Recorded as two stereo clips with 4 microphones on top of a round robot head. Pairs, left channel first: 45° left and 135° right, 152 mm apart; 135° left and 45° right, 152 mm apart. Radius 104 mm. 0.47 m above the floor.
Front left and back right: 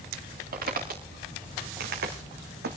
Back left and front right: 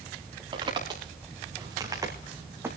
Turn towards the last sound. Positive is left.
turn(degrees=-120)